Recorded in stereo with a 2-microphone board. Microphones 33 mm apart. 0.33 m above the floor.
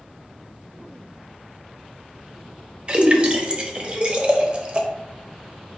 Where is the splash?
35° right (ahead or behind), 0.6 m.